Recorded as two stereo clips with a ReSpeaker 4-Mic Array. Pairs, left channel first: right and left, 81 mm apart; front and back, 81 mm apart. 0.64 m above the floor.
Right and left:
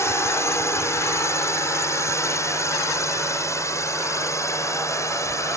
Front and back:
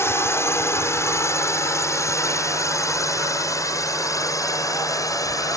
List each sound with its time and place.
0.0 s a drone: 45° right; by 5.6 s 40° right